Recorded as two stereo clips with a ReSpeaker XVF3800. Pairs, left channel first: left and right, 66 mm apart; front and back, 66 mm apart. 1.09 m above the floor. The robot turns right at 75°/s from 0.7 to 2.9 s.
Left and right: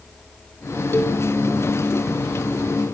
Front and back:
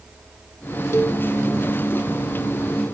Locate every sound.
0.9 s a cowbell: 40° left, 1.2 m; by 1.2 s 65° left, 1.2 m